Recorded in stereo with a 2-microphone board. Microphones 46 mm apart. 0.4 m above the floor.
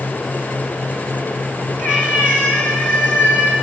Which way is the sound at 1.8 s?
40° left (ahead or behind).